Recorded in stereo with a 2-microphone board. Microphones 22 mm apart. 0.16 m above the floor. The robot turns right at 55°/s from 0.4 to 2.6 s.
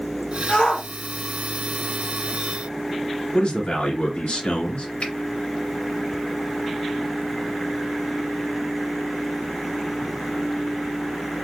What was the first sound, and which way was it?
A shout, 20° left (ahead or behind).